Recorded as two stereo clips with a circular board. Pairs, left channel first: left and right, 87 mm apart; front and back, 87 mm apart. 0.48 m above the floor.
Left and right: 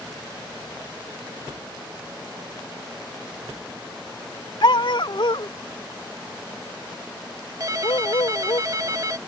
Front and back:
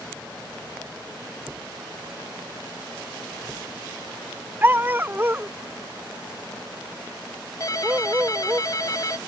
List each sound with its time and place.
4.6 s a dog barking: 115° left; by 8.6 s 110° left
7.6 s a ringtone: 45° right